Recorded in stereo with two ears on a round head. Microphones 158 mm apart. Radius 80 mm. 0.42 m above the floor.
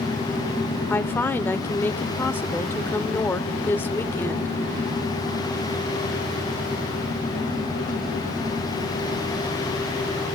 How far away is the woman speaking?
About 1.0 m.